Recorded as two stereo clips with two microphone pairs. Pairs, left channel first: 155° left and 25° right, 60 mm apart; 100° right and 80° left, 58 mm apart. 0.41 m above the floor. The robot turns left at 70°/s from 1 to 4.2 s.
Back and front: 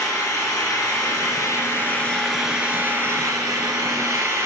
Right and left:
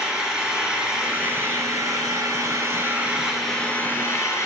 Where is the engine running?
160° left, 1.5 m; by 4.5 s 65° right, 1.5 m.